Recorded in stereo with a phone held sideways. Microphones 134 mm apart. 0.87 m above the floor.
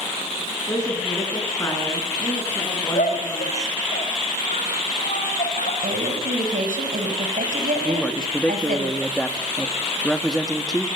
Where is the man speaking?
5° left (ahead or behind), 1.6 m.